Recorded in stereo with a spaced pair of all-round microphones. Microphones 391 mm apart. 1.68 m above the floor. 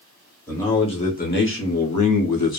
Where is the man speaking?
5° left (ahead or behind), 1.1 m; by 2.6 s 75° left (ahead or behind), 0.8 m.